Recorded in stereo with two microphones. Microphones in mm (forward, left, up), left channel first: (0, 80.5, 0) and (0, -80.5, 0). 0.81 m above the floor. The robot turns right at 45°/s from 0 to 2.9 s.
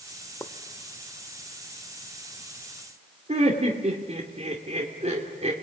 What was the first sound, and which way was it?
A pop, 15° left (ahead or behind).